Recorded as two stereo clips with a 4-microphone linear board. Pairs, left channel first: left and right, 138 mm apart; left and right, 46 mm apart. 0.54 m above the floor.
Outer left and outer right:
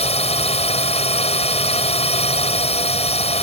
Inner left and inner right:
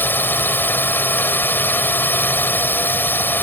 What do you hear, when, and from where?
0.0 s a drone: 50° left (ahead or behind)